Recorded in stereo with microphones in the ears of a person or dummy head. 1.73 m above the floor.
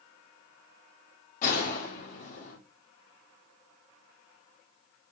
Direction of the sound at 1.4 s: 45° left (ahead or behind).